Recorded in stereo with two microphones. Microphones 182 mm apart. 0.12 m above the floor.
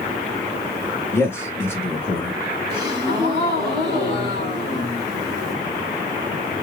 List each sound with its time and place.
1.1 s a man speaking: 15° left (ahead or behind), 1.2 m
2.7 s a gasp: 35° left (ahead or behind), 2 m